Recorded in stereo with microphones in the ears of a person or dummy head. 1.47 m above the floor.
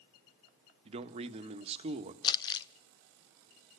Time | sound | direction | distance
0.8 | a man speaking | 35° right (ahead or behind) | 1.6 m
2.2 | crumpling | 25° left (ahead or behind) | 0.7 m